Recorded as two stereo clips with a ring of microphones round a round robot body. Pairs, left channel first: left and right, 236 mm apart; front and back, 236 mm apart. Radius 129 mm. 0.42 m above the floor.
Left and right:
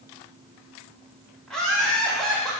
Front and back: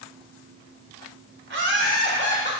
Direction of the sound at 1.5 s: 175° left.